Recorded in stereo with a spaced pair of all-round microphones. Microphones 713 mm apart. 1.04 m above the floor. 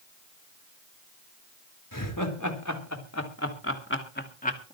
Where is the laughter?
25° left (ahead or behind), 4 m; by 4.8 s 10° left (ahead or behind), 2.5 m.